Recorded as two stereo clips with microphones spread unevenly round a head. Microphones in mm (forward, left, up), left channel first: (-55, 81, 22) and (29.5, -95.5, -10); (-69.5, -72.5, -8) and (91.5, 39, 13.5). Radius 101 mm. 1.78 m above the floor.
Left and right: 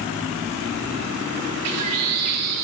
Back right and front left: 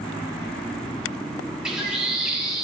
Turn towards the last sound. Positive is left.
turn(degrees=-50)